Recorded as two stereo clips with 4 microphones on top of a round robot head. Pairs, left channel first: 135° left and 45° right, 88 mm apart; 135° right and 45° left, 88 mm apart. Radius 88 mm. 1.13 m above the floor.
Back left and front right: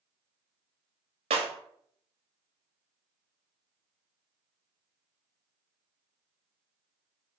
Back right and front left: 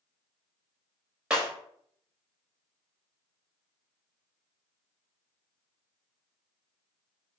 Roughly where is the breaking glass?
Ahead right.